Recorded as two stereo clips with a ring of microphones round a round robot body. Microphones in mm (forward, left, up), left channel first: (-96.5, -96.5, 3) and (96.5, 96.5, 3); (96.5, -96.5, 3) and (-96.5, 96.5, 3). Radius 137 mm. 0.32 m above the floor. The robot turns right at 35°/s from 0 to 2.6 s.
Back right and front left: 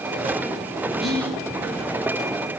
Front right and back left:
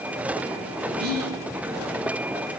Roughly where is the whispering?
Behind left.